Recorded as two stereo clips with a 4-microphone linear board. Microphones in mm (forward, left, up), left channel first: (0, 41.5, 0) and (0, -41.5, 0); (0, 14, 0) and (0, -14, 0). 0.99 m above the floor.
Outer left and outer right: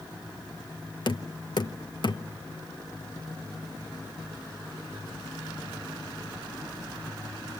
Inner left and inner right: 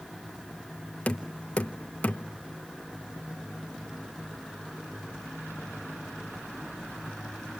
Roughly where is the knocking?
Left.